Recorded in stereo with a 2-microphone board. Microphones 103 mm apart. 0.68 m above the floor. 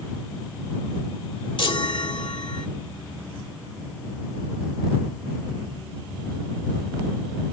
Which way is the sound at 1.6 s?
60° left (ahead or behind).